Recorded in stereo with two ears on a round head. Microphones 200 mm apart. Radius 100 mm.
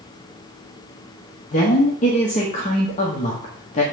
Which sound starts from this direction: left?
A woman speaking, at 1.5 s.